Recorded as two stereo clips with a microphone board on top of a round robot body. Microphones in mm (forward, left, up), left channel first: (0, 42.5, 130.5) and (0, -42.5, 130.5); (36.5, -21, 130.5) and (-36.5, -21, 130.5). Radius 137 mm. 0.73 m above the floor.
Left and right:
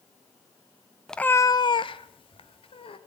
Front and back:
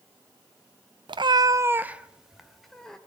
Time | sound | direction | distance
1.1 | a cat meowing | 175° left | 0.6 m